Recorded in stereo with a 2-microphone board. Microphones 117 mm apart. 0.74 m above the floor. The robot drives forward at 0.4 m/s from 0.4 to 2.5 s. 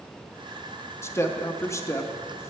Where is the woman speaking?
20° left (ahead or behind), 0.8 m.